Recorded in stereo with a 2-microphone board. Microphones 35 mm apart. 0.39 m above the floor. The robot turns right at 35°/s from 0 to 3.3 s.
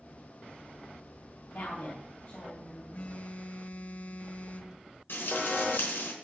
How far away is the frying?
About 4 m.